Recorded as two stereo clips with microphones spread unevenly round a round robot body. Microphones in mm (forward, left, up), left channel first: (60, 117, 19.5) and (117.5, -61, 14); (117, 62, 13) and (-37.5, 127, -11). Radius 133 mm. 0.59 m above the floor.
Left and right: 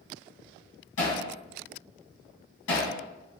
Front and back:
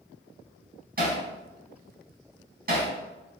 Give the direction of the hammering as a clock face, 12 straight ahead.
8 o'clock.